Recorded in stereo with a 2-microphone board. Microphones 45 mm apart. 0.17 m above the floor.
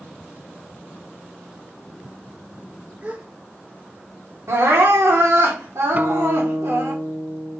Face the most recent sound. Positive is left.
turn(degrees=-35)  # may be behind; listen again after turning